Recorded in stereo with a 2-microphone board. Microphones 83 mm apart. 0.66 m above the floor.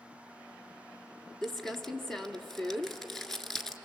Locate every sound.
1.4 s crumpling: 5° left (ahead or behind), 1.4 m